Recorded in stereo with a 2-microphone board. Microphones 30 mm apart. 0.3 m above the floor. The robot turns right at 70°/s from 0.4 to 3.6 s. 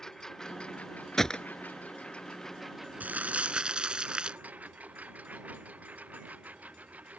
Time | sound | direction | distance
0.0 | a lawn mower | 15° left | ?
1.2 | a gunshot | 10° left (ahead or behind) | ?
3.0 | crumpling | 80° right | ?